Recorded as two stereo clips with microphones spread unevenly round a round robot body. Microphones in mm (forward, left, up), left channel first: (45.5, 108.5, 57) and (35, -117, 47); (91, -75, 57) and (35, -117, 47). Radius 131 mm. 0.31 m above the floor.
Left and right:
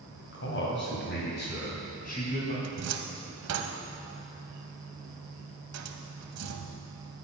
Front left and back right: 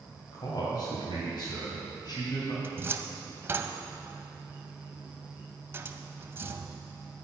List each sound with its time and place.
0.3 s a man speaking: 65° left, 2 m; by 2.5 s 35° left, 2.5 m
2.6 s a cupboard door: 85° right, 0.7 m